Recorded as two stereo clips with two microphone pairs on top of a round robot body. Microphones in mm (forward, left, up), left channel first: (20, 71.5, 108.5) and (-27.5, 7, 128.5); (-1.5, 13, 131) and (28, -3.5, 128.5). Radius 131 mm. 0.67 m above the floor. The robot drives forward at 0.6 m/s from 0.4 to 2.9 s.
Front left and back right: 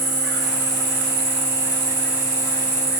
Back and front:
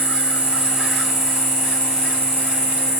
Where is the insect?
85° right, 0.7 m; by 3.0 s 155° right, 1.6 m.